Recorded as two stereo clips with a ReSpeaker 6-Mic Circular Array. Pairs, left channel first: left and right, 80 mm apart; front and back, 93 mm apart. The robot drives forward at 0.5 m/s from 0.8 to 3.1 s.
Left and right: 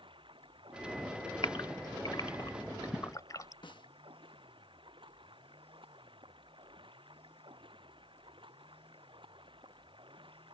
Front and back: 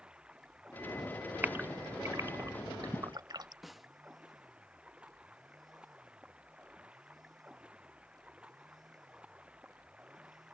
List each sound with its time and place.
0.0 s running water: 100° right
1.4 s a gasp: 110° left; by 3.5 s 135° left
3.6 s a snare drum: 90° left